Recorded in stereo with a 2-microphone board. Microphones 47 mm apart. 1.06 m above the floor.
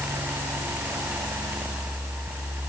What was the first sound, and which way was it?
Only background noise.